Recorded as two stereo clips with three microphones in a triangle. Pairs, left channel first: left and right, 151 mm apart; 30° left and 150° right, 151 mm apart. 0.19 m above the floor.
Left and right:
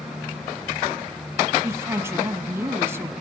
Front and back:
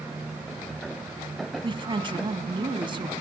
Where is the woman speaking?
150° right, 1.4 m.